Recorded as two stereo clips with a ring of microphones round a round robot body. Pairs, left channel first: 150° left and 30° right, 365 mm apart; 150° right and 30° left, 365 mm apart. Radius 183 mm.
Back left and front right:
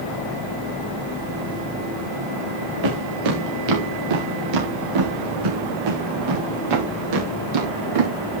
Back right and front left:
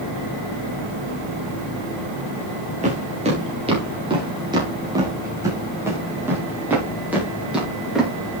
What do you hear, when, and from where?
2.8 s footsteps: 40° right, 5.5 m; by 8.1 s 60° right, 9 m